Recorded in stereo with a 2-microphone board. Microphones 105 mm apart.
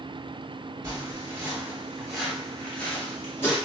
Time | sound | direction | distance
0.8 | footsteps | 25° right (ahead or behind) | 1.6 m